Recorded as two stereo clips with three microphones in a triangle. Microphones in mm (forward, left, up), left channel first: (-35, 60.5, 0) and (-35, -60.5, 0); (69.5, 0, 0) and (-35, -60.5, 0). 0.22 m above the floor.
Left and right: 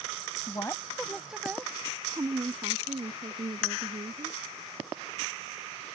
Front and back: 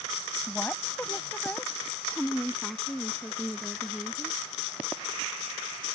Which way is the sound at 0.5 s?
95° left.